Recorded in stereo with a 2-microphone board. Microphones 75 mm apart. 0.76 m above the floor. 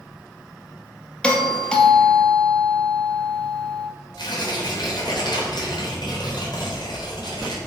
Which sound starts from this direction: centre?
A doorbell, at 1.2 s.